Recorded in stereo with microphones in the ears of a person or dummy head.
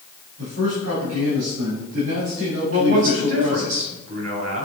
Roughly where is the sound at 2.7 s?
Right.